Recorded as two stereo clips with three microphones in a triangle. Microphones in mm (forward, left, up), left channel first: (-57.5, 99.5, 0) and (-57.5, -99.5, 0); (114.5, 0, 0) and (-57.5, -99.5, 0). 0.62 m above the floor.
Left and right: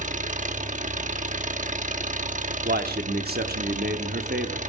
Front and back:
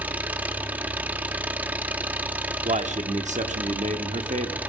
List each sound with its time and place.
0.0 s an engine running: 70° right, 1.0 m
2.6 s a man speaking: 105° right, 1.1 m